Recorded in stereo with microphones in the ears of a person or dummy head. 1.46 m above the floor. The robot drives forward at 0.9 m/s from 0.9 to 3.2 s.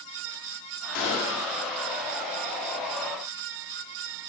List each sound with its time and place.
0.9 s a gunshot: 55° left (ahead or behind), 1.7 m; by 1.5 s 45° left (ahead or behind), 2 m